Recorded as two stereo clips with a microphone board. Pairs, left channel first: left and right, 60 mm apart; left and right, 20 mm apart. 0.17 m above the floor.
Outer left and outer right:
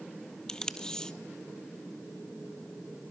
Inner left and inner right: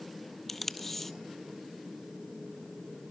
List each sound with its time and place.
0.5 s tape being pulled: 10° left (ahead or behind), 0.7 m